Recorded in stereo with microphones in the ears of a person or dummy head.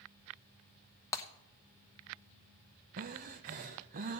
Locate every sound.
1.1 s breaking glass: 15° left (ahead or behind), 1.0 m
3.0 s breathing: 35° right (ahead or behind), 0.7 m